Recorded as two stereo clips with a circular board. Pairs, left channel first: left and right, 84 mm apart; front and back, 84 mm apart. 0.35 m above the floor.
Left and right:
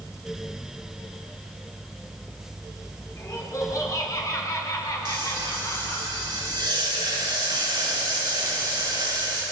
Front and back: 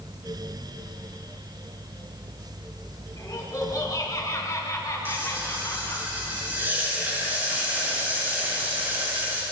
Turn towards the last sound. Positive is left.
turn(degrees=-115)